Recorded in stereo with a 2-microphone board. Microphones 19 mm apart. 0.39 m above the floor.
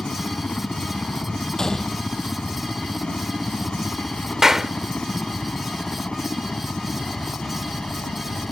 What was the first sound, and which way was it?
A helicopter, 55° left (ahead or behind).